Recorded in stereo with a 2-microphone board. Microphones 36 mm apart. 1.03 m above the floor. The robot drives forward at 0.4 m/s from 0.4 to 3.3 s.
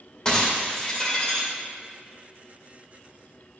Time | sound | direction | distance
0.2 | breaking glass | 25° left (ahead or behind) | 2 m